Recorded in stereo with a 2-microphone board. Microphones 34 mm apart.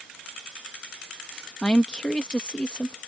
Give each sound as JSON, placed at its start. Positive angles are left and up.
{"t": 1.6, "sound": "a woman speaking", "side_deg": 30}